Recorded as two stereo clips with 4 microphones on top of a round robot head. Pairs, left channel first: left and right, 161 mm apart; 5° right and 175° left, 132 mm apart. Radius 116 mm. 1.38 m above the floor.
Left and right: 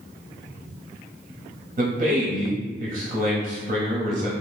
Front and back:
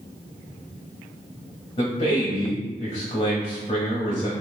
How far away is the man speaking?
About 0.6 m.